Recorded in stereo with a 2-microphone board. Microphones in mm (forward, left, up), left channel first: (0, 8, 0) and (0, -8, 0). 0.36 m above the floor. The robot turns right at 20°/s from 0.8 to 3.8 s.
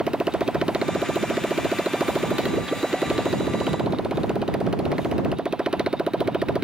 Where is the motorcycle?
70° right (ahead or behind); by 6.6 s 60° right (ahead or behind).